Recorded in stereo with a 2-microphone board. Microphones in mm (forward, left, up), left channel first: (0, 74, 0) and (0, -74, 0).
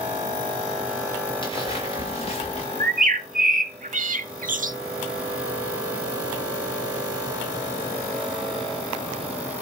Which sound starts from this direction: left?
Footsteps, at 1.4 s.